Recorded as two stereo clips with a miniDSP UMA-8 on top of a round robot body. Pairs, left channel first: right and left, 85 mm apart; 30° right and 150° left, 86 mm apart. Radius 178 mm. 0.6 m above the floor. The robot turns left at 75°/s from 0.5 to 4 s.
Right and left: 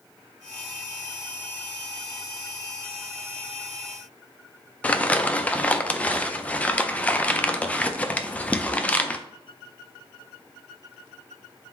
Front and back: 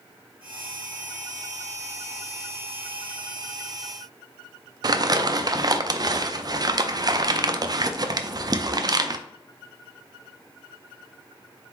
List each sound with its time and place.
4.8 s crumpling: 165° right, 0.5 m